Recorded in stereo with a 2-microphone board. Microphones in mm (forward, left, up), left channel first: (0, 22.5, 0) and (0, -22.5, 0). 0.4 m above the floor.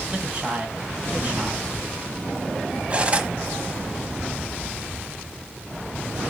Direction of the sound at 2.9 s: 25° right (ahead or behind).